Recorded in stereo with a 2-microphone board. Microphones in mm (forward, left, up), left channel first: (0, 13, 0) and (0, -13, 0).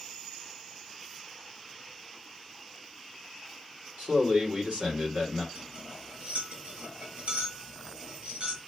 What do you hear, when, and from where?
4.0 s a man speaking: 55° right (ahead or behind), 2 m
5.5 s cutlery clinking: 50° right (ahead or behind), 4.5 m